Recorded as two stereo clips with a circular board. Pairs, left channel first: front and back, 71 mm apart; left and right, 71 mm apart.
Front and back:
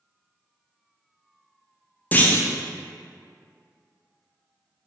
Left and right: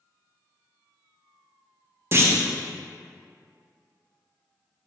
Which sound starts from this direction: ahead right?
A clunk, at 2.1 s.